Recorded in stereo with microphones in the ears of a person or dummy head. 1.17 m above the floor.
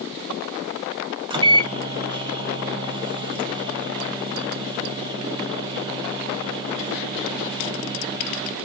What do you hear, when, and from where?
1.3 s a microwave: 25° right (ahead or behind), 0.6 m